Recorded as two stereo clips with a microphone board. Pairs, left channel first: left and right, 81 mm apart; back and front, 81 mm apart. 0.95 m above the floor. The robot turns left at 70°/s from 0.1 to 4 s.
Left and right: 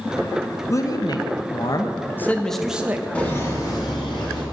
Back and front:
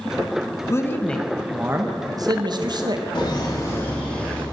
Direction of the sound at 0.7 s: 135° left.